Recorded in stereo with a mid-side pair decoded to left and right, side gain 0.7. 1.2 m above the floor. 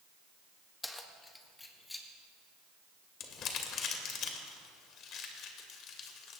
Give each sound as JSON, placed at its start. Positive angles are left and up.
{"t": 0.8, "sound": "keys jangling", "azimuth_deg": 10, "distance_m": 1.2}
{"t": 3.2, "sound": "crumpling", "azimuth_deg": 50, "distance_m": 1.9}